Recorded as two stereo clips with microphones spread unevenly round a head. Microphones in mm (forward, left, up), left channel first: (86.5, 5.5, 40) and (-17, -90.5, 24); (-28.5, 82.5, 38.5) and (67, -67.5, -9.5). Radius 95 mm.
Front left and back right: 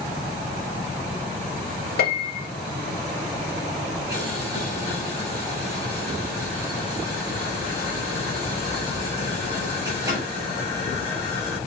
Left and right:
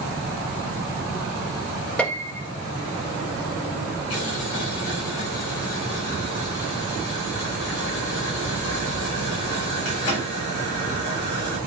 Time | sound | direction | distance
2.0 | a piano | 40° left | 3 m
4.1 | boiling | 155° left | 8 m